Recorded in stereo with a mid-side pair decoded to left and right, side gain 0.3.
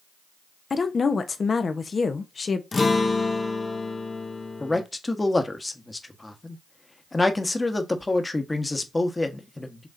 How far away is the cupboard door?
I don't hear a cupboard door.